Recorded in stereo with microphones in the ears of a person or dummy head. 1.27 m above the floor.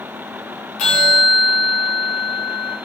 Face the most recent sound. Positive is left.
turn(degrees=40)  # may be behind; listen again after turning